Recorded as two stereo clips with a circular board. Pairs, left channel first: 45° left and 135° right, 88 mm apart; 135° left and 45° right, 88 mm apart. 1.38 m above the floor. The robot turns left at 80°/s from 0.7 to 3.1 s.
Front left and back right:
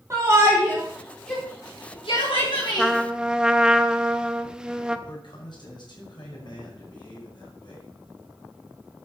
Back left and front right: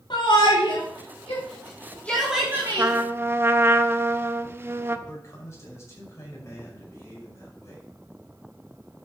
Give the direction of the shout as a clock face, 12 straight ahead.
6 o'clock.